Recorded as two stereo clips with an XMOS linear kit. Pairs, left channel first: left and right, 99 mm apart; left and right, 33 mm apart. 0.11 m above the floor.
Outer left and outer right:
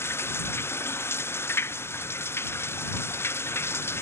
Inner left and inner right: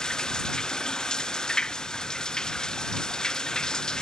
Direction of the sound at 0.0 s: 25° left (ahead or behind).